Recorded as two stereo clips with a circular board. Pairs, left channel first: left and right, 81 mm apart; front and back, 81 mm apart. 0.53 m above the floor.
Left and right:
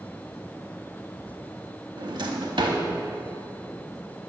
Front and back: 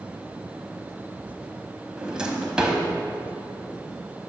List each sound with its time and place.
2.0 s a drawer: 100° right, 0.7 m